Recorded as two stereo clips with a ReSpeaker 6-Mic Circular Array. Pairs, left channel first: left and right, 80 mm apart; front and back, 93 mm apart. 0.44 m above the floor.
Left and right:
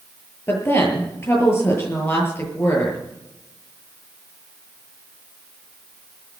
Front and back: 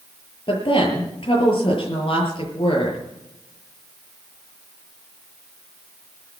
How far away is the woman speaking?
About 7.5 m.